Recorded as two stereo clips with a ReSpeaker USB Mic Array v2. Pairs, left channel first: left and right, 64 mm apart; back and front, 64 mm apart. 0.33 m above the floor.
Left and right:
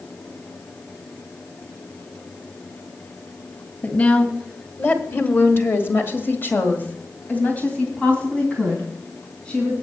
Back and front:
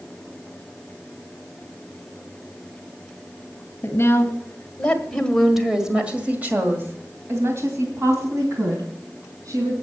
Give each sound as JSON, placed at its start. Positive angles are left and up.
{"t": 3.8, "sound": "a woman speaking", "azimuth_deg": 145, "distance_m": 2.0}